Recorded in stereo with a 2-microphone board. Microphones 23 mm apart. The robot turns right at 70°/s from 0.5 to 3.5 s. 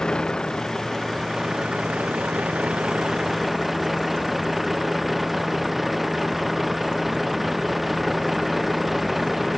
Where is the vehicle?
145° left; by 9.6 s 5° right.